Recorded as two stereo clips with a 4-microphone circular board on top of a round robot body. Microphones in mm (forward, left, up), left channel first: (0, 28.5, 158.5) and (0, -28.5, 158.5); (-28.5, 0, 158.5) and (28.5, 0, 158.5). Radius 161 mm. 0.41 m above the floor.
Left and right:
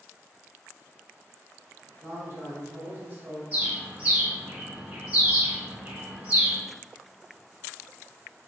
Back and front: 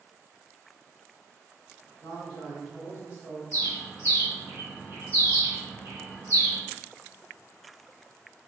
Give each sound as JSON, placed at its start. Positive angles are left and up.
{"t": 2.0, "sound": "a man speaking", "azimuth_deg": -60, "distance_m": 1.6}
{"t": 3.5, "sound": "a bird", "azimuth_deg": -25, "distance_m": 1.4}